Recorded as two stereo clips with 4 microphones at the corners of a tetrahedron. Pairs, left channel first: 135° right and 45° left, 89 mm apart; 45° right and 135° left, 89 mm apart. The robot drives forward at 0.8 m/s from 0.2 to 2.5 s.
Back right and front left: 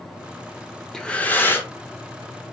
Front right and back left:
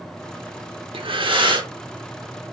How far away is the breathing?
About 0.5 m.